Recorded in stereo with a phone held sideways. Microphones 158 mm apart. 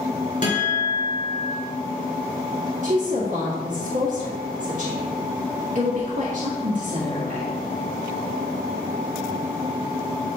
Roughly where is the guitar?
Left.